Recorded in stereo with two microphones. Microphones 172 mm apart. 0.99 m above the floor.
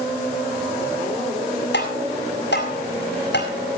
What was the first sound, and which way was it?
Tapping, 85° left.